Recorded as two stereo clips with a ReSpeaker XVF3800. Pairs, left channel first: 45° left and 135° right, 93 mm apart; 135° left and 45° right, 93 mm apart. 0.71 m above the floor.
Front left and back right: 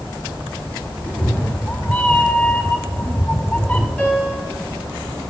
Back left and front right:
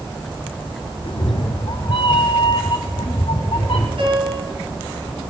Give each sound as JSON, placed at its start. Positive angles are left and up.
{"t": 1.0, "sound": "a cat meowing", "azimuth_deg": 120, "distance_m": 1.1}
{"t": 4.0, "sound": "a piano", "azimuth_deg": -30, "distance_m": 5.0}